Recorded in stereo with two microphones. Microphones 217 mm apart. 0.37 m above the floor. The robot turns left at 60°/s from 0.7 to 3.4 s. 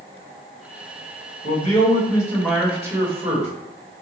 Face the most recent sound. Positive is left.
turn(degrees=-50)